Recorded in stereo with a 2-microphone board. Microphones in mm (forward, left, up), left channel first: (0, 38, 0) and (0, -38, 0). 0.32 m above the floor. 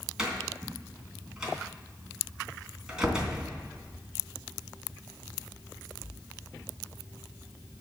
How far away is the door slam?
About 2.5 m.